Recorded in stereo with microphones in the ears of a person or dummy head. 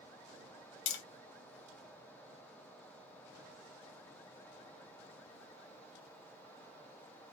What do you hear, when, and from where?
0.9 s tapping: 60° left (ahead or behind), 0.8 m